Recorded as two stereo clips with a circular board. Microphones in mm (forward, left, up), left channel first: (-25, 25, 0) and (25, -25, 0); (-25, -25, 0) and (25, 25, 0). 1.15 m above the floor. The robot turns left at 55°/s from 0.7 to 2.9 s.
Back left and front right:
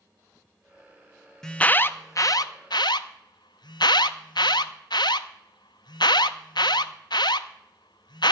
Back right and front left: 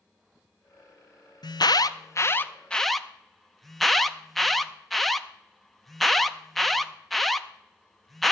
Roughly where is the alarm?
Behind right.